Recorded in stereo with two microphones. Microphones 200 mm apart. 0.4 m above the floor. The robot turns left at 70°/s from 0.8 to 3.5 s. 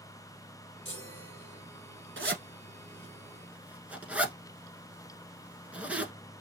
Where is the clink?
I don't hear a clink.